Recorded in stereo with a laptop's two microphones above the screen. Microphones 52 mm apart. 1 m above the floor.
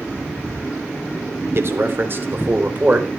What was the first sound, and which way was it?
A man speaking, 55° right (ahead or behind).